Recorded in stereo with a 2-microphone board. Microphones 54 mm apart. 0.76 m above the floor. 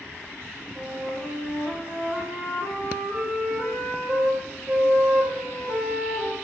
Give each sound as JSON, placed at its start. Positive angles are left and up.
{"t": 0.8, "sound": "a flute", "side_deg": -70, "distance_m": 2.5}